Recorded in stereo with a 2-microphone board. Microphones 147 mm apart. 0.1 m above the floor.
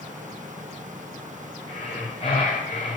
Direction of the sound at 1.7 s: 40° left (ahead or behind).